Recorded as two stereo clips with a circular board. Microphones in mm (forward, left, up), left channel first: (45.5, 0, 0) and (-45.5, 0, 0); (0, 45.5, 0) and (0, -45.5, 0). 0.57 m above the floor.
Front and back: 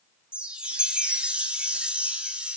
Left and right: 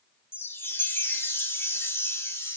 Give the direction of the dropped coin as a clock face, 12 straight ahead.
No dropped coin in this recording.